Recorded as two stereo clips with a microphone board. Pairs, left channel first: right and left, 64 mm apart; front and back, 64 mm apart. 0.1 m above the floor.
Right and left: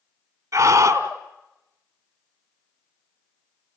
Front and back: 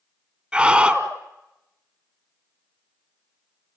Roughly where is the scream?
Left.